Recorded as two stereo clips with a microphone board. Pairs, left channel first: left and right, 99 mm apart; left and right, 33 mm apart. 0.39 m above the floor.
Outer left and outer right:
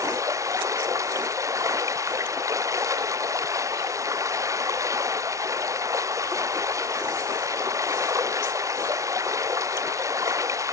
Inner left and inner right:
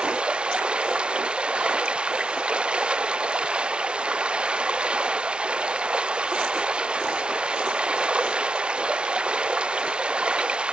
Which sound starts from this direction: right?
Running water, at 0.0 s.